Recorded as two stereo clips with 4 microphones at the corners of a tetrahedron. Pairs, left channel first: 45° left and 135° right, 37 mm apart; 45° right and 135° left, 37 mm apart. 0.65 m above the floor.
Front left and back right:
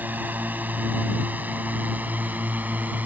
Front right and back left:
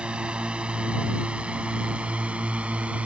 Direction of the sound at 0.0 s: 165° right.